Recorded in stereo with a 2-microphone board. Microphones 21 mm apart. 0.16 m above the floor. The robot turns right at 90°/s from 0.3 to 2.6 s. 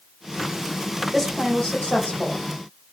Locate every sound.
1.1 s a woman speaking: 5° right, 6.5 m; by 2.5 s 115° left, 6.5 m